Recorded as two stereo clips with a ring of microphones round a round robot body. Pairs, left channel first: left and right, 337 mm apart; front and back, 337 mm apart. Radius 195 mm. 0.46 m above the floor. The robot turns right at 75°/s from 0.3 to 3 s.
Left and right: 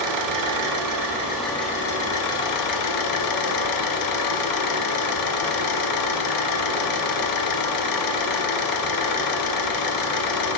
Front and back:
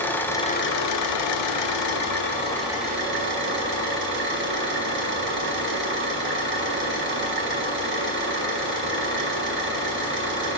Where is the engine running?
85° right, 0.9 m; by 10.6 s 120° left, 0.9 m.